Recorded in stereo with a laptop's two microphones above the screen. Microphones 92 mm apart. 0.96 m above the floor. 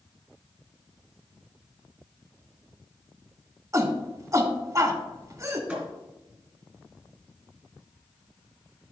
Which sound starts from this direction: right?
A shout, at 3.7 s.